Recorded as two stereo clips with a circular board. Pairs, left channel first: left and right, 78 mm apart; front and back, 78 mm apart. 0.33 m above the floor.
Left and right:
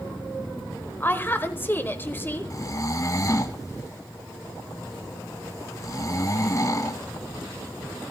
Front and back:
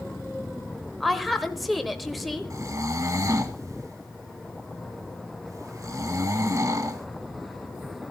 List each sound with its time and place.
1.0 s a woman speaking: 90° left, 1.2 m
2.5 s snoring: 135° left, 1.0 m